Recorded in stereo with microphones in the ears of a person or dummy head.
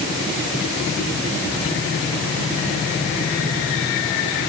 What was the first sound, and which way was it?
Only background noise.